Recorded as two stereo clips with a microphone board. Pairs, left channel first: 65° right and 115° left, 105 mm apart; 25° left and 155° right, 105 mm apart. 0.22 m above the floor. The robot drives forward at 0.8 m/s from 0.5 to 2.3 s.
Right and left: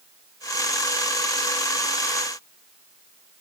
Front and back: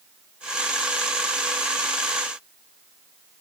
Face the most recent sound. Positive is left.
No sound to turn to.